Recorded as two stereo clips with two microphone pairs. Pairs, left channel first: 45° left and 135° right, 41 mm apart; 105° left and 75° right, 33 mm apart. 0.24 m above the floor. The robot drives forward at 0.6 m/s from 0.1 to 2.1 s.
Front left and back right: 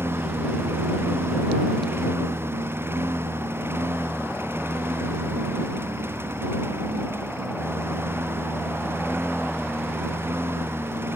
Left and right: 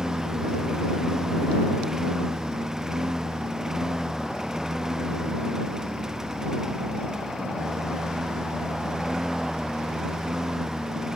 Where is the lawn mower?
150° right.